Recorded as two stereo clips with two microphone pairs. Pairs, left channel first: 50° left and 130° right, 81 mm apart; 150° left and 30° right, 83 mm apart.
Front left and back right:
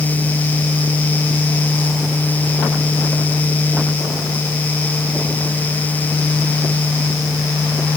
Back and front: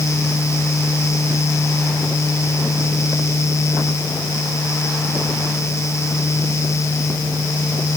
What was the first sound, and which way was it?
Only background noise.